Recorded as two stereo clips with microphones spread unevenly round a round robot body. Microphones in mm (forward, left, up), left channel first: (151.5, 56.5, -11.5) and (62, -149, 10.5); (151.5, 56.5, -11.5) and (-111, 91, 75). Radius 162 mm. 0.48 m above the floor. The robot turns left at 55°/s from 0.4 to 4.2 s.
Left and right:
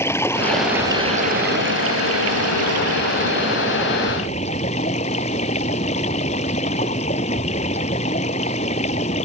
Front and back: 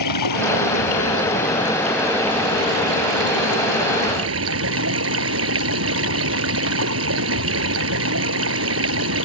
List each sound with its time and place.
0.0 s running water: 15° right; by 9.3 s 140° left